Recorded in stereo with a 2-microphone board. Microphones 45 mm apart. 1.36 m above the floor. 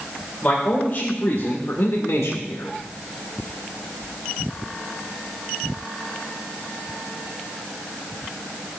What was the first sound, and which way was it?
A man speaking, 30° left (ahead or behind).